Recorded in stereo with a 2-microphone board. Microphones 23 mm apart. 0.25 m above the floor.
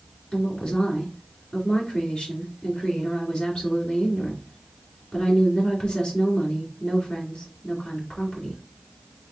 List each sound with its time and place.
0.3 s a woman speaking: 45° left (ahead or behind), 2.5 m